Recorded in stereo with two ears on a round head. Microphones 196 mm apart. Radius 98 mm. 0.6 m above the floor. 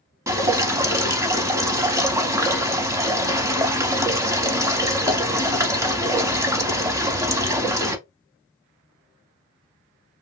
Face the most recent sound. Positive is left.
turn(degrees=-15)  # may be behind; listen again after turning